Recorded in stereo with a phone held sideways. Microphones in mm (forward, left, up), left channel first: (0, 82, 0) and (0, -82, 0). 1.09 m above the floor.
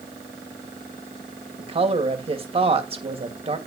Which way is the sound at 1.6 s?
35° right (ahead or behind).